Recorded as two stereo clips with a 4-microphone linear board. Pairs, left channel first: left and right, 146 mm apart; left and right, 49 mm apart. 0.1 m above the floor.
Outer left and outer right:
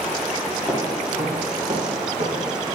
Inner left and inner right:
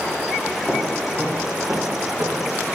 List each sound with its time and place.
0.7 s footsteps: 5° right (ahead or behind), 1.8 m; by 2.6 s 60° right (ahead or behind), 2 m